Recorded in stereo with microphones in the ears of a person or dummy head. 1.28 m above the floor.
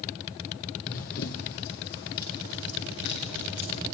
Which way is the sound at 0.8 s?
45° left (ahead or behind).